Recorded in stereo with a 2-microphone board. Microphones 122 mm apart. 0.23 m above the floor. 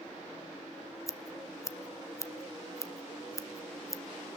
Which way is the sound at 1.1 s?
25° left (ahead or behind).